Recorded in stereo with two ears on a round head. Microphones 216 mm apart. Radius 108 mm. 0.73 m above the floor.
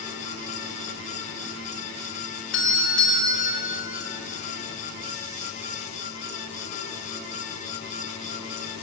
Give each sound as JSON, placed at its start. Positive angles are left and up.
{"t": 2.5, "sound": "a doorbell", "side_deg": 50, "distance_m": 5.0}